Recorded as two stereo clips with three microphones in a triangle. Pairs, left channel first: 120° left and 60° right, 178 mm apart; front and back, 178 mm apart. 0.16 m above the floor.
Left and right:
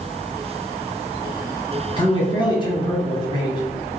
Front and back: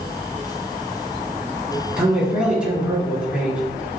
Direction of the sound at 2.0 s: 100° left.